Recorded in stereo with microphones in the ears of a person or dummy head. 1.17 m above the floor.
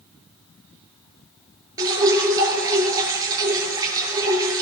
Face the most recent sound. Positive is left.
turn(degrees=-20)  # may be behind; listen again after turning